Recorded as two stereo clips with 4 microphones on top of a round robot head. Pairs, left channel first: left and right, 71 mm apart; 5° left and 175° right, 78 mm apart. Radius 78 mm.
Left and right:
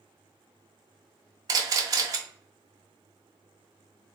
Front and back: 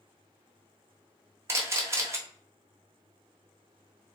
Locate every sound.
1.5 s a camera shutter: 120° right, 0.9 m